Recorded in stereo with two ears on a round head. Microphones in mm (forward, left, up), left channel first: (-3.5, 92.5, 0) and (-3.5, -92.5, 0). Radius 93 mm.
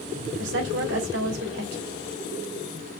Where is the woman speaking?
60° right (ahead or behind), 2.5 m.